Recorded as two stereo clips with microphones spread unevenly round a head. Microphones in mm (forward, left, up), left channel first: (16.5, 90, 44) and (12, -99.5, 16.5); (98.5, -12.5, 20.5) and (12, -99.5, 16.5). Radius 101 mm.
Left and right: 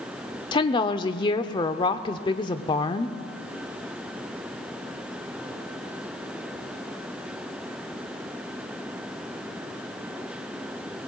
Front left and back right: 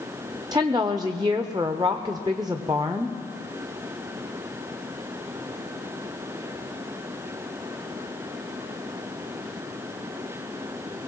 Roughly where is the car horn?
I don't hear a car horn.